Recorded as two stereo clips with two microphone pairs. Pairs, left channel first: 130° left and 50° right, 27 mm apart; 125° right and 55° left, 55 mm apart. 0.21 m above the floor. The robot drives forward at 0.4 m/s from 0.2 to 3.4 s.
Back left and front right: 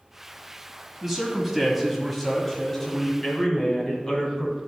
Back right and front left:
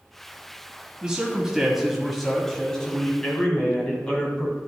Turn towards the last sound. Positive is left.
turn(degrees=175)